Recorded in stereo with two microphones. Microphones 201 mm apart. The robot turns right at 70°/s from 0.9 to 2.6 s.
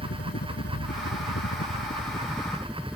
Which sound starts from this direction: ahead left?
A helicopter, at 0.0 s.